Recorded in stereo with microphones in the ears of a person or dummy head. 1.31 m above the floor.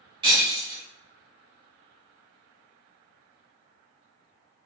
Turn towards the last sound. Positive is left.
turn(degrees=-25)  # may be behind; listen again after turning